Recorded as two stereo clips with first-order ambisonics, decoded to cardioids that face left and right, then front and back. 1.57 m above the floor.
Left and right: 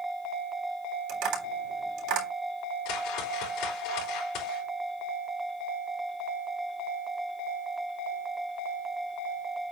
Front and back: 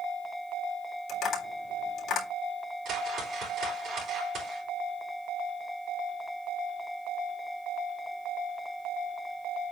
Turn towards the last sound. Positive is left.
turn(degrees=120)